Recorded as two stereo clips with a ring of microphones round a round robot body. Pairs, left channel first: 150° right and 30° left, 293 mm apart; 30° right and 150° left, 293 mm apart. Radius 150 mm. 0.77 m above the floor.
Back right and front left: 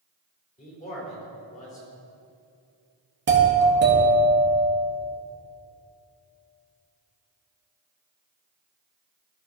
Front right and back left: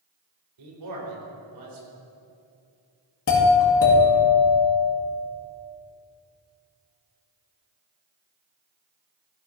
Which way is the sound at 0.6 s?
145° left.